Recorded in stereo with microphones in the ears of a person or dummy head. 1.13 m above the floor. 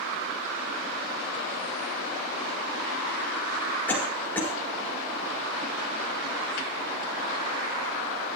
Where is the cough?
10° left (ahead or behind), 5.5 m.